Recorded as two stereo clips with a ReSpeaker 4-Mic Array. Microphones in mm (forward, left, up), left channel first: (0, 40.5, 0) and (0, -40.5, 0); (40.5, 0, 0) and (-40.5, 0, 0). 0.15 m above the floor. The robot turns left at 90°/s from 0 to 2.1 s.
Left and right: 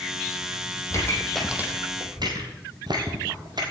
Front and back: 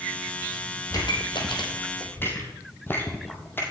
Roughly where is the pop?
Ahead left.